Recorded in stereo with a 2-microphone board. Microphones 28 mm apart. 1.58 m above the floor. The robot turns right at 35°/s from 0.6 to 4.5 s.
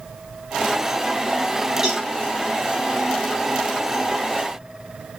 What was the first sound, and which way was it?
A cowbell, 20° right (ahead or behind).